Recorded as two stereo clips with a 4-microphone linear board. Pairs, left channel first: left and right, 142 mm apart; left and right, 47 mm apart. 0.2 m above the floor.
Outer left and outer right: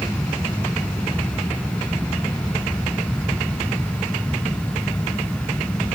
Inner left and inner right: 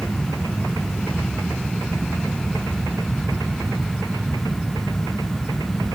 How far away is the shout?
No shout in this recording.